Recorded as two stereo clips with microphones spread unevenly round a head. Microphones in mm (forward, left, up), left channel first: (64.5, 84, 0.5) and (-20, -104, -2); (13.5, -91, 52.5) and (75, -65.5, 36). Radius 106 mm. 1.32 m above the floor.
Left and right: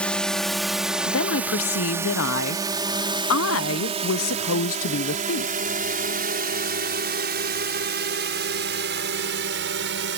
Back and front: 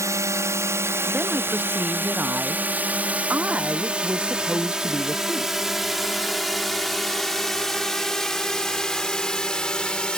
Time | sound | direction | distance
0.0 | a drone | 20° right | ?
1.1 | a woman speaking | 90° left | ?